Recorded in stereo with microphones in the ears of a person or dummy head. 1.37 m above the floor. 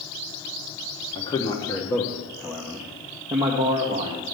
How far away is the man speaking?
About 1.3 m.